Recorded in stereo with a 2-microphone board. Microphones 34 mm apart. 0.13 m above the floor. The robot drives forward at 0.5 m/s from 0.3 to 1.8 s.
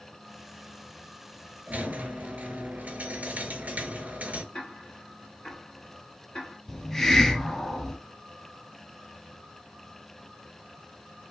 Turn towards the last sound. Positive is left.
turn(degrees=15)  # may be behind; listen again after turning